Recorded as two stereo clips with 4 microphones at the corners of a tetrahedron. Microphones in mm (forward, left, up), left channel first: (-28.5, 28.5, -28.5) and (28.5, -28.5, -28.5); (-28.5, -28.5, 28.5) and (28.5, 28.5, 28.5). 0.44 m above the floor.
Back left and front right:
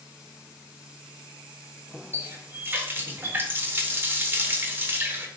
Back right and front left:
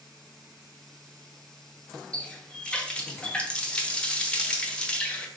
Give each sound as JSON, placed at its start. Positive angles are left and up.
{"t": 2.1, "sound": "a running tap", "azimuth_deg": -70, "distance_m": 0.6}